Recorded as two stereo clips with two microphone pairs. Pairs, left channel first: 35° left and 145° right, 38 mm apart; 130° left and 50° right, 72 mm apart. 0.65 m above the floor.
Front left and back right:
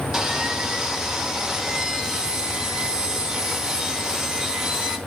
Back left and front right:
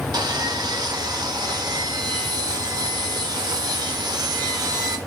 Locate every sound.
0.1 s sawing: 75° right, 0.8 m